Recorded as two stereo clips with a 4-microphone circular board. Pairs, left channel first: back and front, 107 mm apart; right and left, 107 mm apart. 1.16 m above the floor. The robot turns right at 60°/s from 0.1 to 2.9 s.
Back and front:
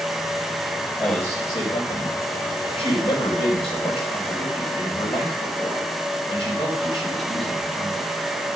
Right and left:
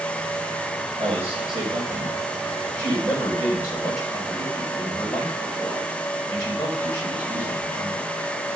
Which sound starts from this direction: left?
A man speaking, at 1.0 s.